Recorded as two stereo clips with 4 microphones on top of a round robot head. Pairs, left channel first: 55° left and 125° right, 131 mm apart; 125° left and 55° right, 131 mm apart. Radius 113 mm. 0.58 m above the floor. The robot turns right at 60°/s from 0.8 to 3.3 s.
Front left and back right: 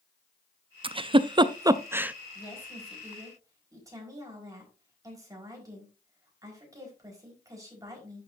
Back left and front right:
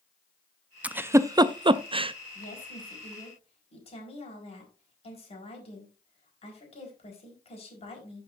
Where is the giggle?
130° right, 0.6 m; by 2.1 s 50° right, 0.6 m.